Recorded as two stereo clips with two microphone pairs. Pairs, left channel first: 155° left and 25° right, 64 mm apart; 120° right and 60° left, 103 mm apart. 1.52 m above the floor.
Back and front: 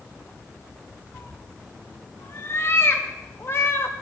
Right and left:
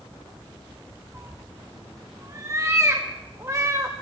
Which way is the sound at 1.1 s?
115° left.